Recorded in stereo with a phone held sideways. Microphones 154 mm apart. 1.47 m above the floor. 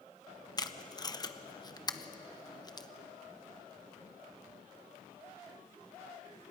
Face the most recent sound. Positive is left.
turn(degrees=25)  # may be behind; listen again after turning